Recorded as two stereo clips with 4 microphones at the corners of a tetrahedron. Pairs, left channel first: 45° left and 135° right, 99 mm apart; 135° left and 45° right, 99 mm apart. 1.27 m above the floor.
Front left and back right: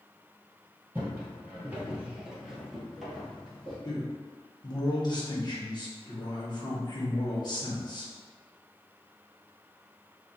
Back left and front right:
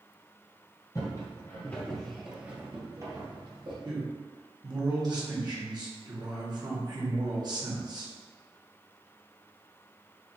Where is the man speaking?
Straight ahead, 1.2 m.